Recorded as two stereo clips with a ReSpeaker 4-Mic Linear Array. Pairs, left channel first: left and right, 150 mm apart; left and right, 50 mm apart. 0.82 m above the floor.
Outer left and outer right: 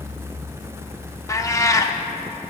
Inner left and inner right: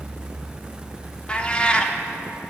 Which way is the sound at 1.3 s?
20° left (ahead or behind).